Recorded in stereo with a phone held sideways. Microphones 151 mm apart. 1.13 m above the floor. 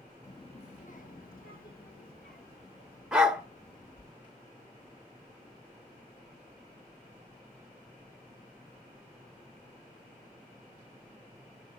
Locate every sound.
0.2 s a child speaking: 20° left (ahead or behind), 0.6 m; by 4.1 s 80° left, 3.5 m
3.1 s a dog barking: 5° right (ahead or behind), 1.0 m